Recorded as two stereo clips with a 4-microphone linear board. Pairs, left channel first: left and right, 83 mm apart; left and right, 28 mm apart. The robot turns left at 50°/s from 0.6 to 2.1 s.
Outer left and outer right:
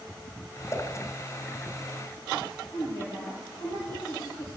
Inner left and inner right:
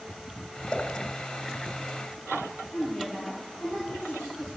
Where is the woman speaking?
35° left (ahead or behind), 2.5 m.